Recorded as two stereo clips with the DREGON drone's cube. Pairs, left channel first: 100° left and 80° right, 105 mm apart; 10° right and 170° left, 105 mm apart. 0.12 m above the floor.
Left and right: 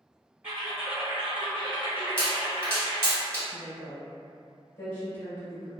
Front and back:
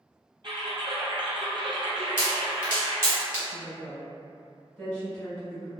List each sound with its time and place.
0.4 s typing on a keyboard: 150° right, 1.0 m
2.2 s a pop: 135° right, 1.7 m
3.5 s a woman speaking: 60° left, 1.7 m